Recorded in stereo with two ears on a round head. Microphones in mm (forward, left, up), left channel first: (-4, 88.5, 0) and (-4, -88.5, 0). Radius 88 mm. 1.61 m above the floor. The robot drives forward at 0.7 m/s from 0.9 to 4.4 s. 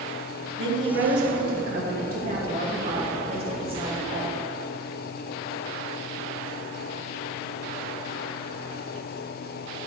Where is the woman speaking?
65° right (ahead or behind), 1.7 m; by 4.4 s 25° right (ahead or behind), 3.5 m.